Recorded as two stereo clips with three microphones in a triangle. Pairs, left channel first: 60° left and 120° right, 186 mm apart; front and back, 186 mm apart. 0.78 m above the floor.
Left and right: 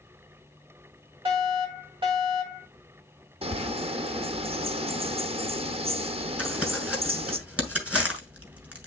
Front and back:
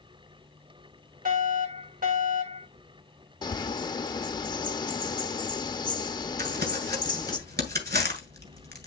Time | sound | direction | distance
1.2 | a fire alarm | 170° right | 2 m
3.4 | a bird | 65° right | 0.6 m
6.4 | crumpling | 155° left | 2 m